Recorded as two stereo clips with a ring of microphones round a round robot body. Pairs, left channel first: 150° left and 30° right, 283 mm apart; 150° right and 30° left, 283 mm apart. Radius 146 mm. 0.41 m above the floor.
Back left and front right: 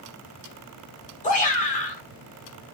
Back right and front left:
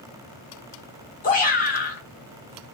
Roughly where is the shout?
Behind.